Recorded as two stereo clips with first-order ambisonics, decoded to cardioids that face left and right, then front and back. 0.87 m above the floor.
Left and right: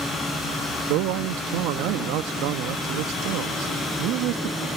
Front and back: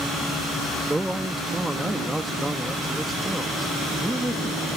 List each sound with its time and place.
0.9 s a man speaking: 95° right